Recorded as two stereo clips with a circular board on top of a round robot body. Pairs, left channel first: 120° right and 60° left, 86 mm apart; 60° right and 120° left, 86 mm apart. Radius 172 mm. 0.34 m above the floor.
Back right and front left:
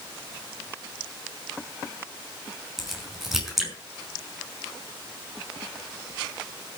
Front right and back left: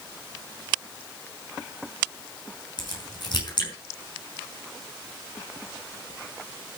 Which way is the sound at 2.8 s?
25° right.